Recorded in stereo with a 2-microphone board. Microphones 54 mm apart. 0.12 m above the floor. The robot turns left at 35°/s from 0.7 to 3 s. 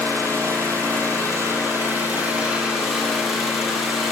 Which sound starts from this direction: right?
An engine running, at 0.0 s.